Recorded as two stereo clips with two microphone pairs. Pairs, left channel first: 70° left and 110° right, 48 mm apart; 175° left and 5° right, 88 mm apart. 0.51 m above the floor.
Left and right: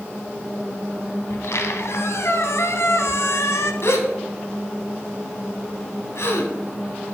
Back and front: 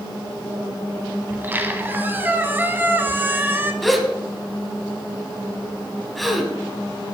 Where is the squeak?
60° left, 1.2 m.